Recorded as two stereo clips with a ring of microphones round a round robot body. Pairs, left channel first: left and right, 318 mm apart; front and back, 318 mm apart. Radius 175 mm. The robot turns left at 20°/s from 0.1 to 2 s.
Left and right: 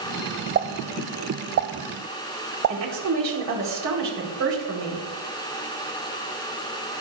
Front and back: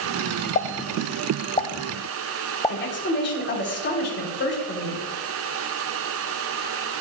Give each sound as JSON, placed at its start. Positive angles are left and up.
{"t": 0.6, "sound": "a pop", "azimuth_deg": -45, "distance_m": 0.5}
{"t": 2.7, "sound": "a woman speaking", "azimuth_deg": -55, "distance_m": 3.0}